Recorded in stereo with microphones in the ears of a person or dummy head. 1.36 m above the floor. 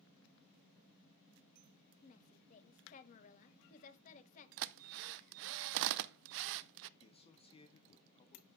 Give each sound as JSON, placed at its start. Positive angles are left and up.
{"t": 2.0, "sound": "a woman speaking", "side_deg": 40, "distance_m": 1.7}
{"t": 4.6, "sound": "a drill", "side_deg": -70, "distance_m": 0.5}
{"t": 7.0, "sound": "a man speaking", "side_deg": 30, "distance_m": 1.4}